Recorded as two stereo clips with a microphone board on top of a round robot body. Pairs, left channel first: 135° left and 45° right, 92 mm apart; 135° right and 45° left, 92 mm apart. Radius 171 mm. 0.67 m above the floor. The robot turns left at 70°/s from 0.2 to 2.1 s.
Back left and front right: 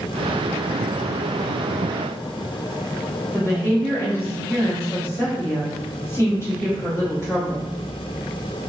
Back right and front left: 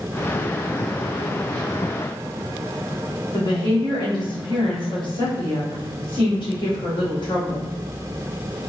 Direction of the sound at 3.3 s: 165° right.